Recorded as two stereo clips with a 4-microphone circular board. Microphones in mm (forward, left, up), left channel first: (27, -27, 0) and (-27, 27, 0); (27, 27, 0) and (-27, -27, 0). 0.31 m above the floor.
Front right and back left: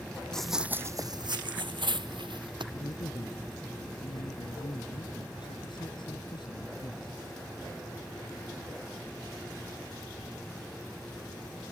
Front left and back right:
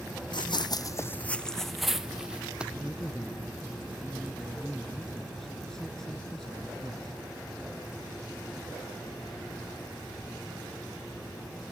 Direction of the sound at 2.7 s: 40° right.